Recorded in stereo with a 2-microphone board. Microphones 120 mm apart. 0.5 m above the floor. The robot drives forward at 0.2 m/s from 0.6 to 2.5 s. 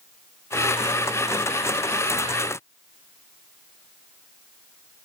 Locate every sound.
Only background noise.